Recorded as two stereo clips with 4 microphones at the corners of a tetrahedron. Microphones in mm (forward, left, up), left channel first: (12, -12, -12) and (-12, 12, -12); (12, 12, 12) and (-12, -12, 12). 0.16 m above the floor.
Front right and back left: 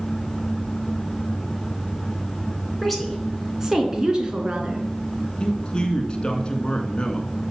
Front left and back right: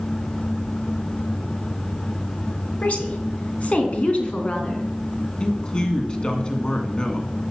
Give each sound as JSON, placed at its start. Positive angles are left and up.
{"t": 2.8, "sound": "a woman speaking", "azimuth_deg": 40, "distance_m": 2.0}
{"t": 5.4, "sound": "a man speaking", "azimuth_deg": -5, "distance_m": 1.9}